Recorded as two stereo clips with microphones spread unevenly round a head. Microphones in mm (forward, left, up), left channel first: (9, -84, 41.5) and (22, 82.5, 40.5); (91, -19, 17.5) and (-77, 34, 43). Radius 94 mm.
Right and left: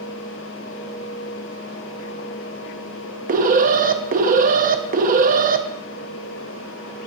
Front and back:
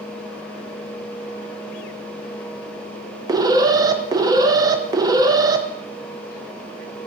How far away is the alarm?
About 0.8 m.